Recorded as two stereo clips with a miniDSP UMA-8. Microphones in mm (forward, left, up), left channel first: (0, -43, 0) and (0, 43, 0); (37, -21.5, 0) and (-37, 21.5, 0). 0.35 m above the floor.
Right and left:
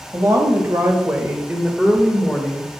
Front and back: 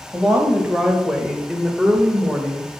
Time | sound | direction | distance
0.1 | a woman speaking | 70° left | 1.8 m